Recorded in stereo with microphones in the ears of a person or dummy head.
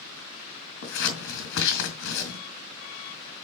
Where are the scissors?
70° left (ahead or behind), 4 m.